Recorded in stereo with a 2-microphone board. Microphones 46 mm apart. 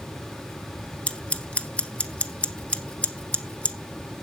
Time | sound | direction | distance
1.1 | scissors | 30° left (ahead or behind) | 1.6 m